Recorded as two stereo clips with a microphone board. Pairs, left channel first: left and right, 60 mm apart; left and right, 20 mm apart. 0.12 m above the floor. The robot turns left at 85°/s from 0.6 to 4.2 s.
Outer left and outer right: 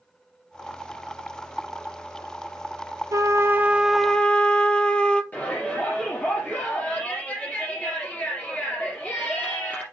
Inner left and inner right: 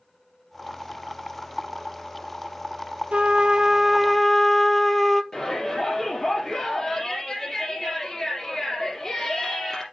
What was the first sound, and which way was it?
A trumpet, 105° right.